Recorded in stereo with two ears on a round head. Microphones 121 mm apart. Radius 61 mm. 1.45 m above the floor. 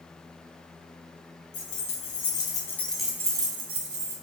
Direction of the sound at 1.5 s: 55° left (ahead or behind).